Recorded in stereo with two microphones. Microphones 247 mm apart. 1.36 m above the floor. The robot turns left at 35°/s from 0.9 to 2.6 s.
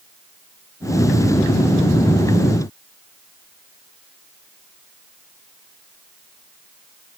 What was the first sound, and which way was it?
Only background noise.